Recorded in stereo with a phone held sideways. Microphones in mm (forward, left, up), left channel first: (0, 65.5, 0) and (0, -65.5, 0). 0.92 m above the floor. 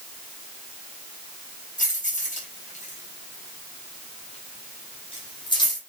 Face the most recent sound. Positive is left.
turn(degrees=30)  # may be behind; listen again after turning